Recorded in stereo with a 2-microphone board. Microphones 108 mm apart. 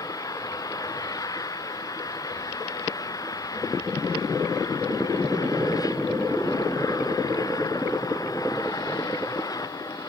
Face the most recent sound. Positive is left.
turn(degrees=35)  # may be behind; listen again after turning